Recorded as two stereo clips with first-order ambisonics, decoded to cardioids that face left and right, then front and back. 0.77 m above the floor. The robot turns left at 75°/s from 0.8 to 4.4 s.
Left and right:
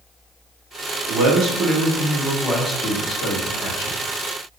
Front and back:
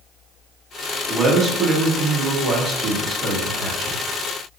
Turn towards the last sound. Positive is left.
turn(degrees=25)